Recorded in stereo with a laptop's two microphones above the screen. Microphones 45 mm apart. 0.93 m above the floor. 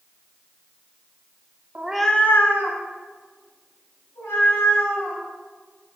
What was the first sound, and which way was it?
A cat meowing, 35° right (ahead or behind).